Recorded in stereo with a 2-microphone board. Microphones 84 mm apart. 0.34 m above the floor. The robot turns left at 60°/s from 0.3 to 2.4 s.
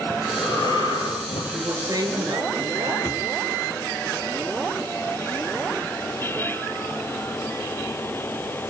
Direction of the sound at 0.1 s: 150° left.